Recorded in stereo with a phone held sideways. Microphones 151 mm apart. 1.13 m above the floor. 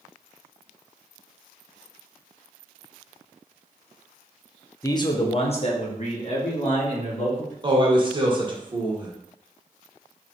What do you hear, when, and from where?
4.8 s a man speaking: 20° left (ahead or behind), 0.6 m; by 7.5 s 50° left (ahead or behind), 3 m
7.6 s a man speaking: 30° right (ahead or behind), 1.3 m